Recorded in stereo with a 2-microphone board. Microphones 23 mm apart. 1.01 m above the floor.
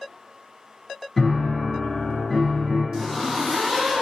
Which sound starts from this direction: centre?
A zipper, at 2.9 s.